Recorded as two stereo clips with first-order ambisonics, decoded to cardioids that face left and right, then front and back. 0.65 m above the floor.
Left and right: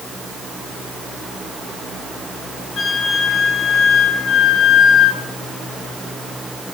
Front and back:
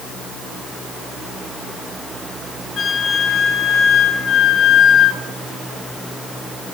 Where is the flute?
45° left, 1.5 m.